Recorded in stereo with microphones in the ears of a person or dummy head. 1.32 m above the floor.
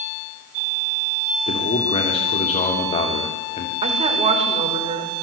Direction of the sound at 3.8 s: 35° right (ahead or behind).